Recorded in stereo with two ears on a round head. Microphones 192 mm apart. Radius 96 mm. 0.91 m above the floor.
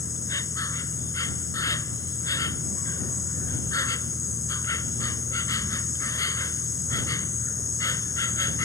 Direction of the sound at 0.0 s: 15° left (ahead or behind).